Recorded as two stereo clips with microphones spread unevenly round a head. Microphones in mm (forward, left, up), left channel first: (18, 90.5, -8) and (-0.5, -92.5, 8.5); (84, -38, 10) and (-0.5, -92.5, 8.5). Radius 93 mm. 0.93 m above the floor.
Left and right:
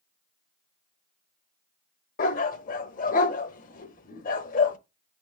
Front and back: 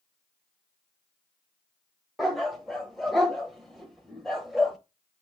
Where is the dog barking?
120° left, 0.8 m.